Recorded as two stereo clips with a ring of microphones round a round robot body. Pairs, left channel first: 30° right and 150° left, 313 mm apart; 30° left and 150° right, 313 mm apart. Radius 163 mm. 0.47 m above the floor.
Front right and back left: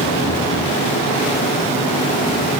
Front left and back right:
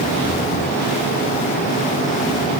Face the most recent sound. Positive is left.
No sound to turn to.